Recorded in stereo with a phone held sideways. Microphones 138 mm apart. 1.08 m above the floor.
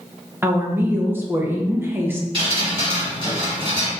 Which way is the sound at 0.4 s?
15° right (ahead or behind).